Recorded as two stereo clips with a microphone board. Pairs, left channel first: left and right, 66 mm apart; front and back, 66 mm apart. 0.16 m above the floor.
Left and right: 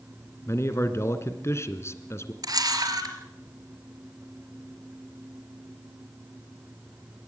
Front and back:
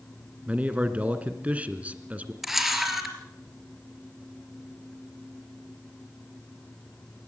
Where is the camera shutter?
95° right, 3.5 m.